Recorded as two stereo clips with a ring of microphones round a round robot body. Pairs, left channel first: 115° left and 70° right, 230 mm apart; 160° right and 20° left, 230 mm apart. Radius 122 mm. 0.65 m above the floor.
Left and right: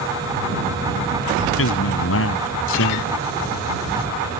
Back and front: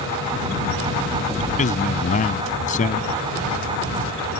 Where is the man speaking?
145° left.